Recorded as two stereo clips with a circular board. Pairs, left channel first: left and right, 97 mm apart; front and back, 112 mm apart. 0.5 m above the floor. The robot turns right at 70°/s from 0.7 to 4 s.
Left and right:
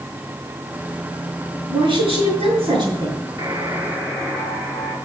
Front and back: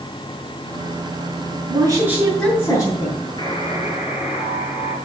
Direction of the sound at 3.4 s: 50° right.